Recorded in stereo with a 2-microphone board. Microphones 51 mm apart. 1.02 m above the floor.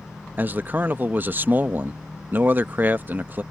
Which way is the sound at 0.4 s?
40° right (ahead or behind).